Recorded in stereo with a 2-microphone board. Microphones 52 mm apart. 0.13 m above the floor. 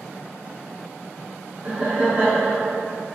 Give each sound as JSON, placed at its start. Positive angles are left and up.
{"t": 1.6, "sound": "laughter", "side_deg": -30, "distance_m": 1.3}